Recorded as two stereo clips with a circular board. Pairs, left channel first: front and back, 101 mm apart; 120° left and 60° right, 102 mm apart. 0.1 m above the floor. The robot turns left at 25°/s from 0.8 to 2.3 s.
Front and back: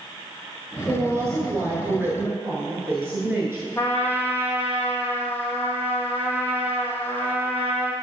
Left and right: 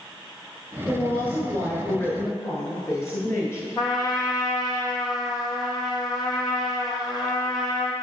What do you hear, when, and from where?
0.9 s a woman speaking: 175° left, 1.3 m; by 3.7 s 140° left, 1.3 m
3.8 s a trumpet: 70° left, 1.4 m